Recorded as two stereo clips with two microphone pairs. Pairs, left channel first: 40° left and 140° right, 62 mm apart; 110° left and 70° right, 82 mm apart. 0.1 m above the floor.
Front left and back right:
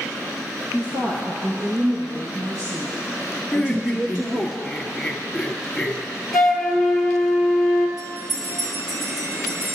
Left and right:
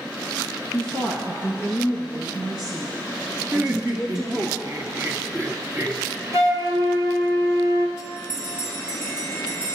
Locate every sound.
0.7 s a woman speaking: 145° right, 3.5 m; by 4.5 s 150° right, 6 m
3.5 s laughter: 45° right, 2.5 m
6.3 s a flute: 55° right, 1.9 m
8.0 s a bell: 150° right, 5.5 m